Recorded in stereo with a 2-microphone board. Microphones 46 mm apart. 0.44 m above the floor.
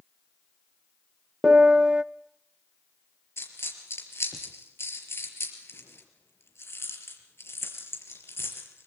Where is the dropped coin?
65° left (ahead or behind), 4.5 m.